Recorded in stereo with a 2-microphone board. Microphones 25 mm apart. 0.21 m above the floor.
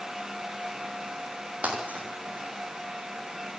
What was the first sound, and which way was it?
Breaking glass, 75° right (ahead or behind).